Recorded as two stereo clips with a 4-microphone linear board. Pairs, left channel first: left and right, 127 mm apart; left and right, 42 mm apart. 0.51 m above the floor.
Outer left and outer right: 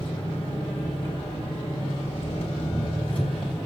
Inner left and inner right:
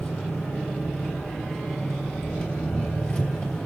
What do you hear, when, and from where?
0.0 s an engine running: 45° left (ahead or behind), 3 m